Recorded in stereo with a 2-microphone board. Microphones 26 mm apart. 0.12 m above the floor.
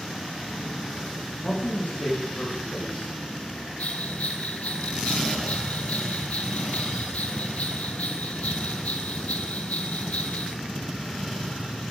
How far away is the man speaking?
About 5.5 m.